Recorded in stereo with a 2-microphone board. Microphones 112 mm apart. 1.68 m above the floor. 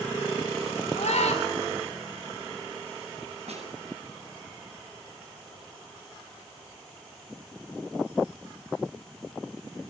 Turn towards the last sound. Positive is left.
turn(degrees=-70)  # may be behind; listen again after turning